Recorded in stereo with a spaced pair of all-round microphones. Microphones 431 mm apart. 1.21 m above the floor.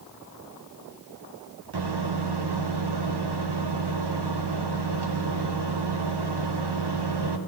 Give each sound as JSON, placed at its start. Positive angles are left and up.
{"t": 1.7, "sound": "a microwave", "side_deg": -65, "distance_m": 0.8}